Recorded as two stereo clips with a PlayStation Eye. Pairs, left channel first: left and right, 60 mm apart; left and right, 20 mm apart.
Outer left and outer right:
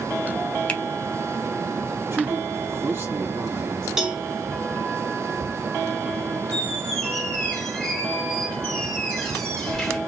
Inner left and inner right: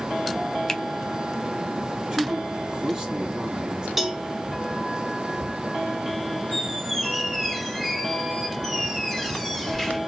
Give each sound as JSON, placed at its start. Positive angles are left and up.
{"t": 0.7, "sound": "a finger snap", "side_deg": 20, "distance_m": 0.7}
{"t": 2.1, "sound": "a man speaking", "side_deg": -40, "distance_m": 2.5}
{"t": 4.0, "sound": "a cowbell", "side_deg": -5, "distance_m": 0.9}
{"t": 6.5, "sound": "a squeak", "side_deg": 10, "distance_m": 1.8}